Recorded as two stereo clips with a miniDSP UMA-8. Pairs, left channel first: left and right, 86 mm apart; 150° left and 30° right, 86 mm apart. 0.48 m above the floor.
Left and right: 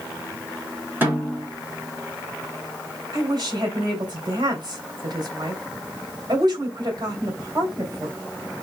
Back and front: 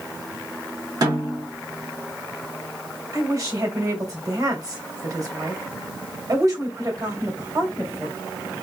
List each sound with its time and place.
1.0 s a snare drum: 30° right, 2.0 m
3.1 s a woman speaking: 70° right, 2.5 m